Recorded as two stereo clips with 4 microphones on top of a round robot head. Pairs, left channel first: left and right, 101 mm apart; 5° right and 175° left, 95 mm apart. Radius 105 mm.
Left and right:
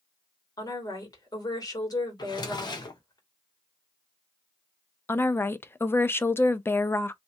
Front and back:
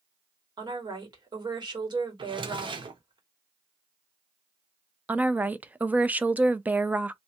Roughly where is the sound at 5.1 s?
Behind left.